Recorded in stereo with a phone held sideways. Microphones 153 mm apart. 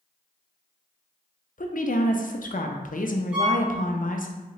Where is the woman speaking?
60° left (ahead or behind), 0.5 m.